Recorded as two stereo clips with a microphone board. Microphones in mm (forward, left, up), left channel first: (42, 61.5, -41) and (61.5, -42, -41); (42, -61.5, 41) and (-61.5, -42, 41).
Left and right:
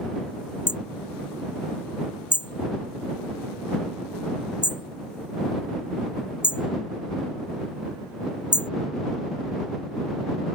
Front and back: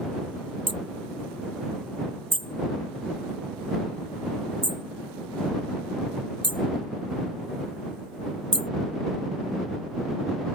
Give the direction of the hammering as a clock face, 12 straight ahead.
7 o'clock.